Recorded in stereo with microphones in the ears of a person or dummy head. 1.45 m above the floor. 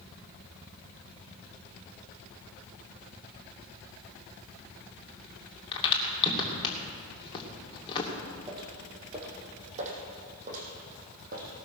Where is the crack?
25° left (ahead or behind), 2.5 m.